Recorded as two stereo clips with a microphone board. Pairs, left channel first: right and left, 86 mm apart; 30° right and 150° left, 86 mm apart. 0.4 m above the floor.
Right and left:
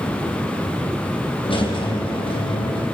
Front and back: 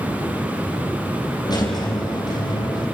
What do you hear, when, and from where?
1.4 s a squeak: 75° right, 4 m